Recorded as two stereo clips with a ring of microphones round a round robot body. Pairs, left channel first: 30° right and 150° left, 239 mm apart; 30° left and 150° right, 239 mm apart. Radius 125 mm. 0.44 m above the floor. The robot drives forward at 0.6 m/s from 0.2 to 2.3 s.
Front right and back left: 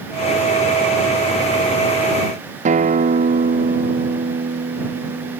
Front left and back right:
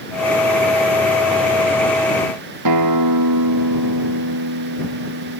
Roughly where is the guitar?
Behind right.